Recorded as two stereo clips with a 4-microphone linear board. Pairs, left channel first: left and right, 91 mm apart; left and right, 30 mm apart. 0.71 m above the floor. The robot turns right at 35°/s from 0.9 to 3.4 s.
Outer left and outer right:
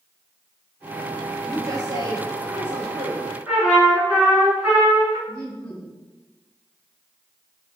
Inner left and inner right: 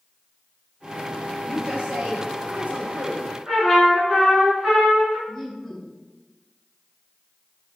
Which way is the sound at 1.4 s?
145° right.